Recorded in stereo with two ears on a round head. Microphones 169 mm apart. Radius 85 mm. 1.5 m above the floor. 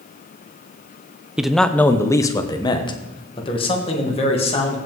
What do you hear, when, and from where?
1.4 s a man speaking: 5° right (ahead or behind), 0.6 m; by 4.8 s 35° left (ahead or behind), 2 m